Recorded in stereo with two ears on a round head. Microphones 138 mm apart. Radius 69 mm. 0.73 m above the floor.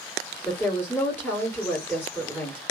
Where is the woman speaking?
15° left (ahead or behind), 2.0 m.